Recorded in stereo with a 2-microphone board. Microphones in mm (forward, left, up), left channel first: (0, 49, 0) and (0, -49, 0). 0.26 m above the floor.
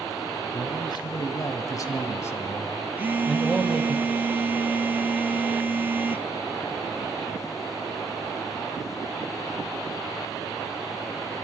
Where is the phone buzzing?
20° right (ahead or behind), 0.7 m.